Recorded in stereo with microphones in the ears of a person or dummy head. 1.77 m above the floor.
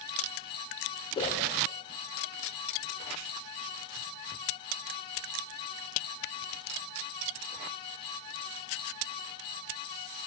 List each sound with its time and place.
1.1 s a whoosh: 30° left (ahead or behind), 2.5 m